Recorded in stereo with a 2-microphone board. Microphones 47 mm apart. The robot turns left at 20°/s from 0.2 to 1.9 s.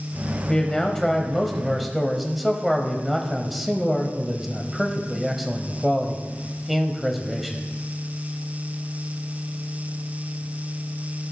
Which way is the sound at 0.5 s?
15° left (ahead or behind).